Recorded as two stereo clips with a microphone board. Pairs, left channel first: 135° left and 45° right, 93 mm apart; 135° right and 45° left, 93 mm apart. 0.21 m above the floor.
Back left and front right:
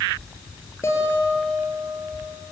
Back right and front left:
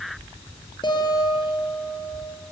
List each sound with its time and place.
0.8 s a guitar: 165° right, 5 m